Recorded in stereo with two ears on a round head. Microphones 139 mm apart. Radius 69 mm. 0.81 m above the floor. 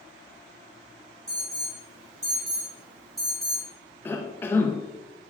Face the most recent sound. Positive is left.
turn(degrees=15)  # may be behind; listen again after turning